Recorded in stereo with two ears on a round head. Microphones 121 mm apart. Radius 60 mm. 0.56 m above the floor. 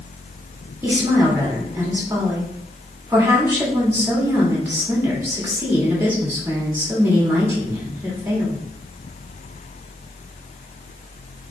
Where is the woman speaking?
15° right (ahead or behind), 1.7 m.